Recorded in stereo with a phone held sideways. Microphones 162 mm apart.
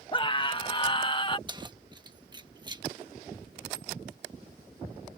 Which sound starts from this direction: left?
A scream, at 0.1 s.